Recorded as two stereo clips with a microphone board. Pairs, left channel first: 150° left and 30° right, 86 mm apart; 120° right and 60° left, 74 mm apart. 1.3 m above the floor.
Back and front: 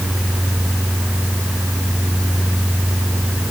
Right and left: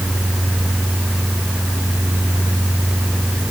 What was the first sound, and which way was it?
Only background noise.